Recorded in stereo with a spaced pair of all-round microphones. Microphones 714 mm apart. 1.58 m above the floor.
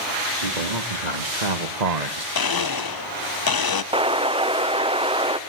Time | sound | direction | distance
0.4 | a man speaking | 80° right | 3 m
2.4 | a blender | 35° left (ahead or behind) | 0.6 m
3.9 | an explosion | 10° right (ahead or behind) | 0.7 m